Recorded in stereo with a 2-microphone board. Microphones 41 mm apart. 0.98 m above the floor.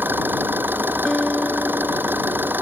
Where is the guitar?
15° left (ahead or behind).